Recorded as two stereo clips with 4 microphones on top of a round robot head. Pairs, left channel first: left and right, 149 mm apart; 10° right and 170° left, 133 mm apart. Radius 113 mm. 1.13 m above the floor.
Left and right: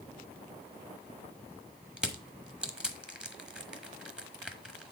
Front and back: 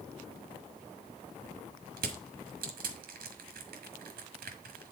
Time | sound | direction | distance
2.0 | crushing | 175° right | 1.2 m